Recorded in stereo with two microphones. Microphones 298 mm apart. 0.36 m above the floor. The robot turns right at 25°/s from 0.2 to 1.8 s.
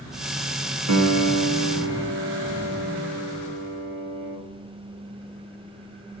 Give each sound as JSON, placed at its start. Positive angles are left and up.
{"t": 0.9, "sound": "a piano", "side_deg": -60, "distance_m": 0.6}